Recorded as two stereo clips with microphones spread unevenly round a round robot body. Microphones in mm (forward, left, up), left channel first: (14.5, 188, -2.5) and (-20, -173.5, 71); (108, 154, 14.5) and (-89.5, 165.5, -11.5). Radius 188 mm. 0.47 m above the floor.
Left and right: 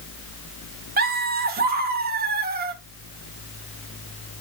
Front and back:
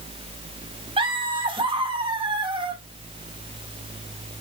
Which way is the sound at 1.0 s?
160° right.